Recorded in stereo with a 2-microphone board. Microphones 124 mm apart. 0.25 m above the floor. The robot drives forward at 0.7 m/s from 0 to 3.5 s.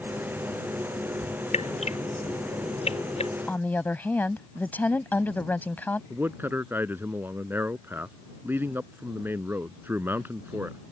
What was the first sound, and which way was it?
Dripping, 60° left (ahead or behind).